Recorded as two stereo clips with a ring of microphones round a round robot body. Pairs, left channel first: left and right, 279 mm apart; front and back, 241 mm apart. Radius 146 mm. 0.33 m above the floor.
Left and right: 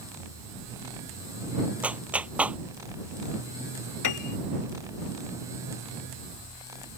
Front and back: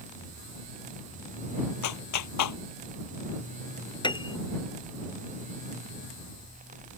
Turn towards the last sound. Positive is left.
turn(degrees=70)